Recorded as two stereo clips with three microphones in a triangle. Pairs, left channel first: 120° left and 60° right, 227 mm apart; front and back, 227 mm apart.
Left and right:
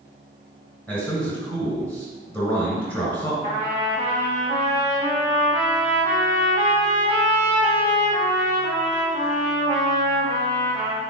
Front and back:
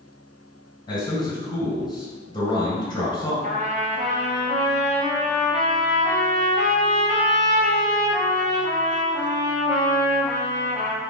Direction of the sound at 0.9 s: 45° left.